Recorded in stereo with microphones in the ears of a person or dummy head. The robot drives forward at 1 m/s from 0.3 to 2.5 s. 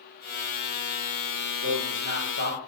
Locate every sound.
1.6 s a man speaking: 60° right (ahead or behind), 4 m; by 2.6 s 50° right (ahead or behind), 4.5 m